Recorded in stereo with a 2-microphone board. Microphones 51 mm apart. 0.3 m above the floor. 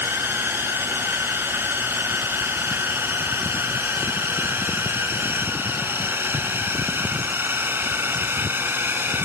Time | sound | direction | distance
0.0 | a drone | 45° right (ahead or behind) | ?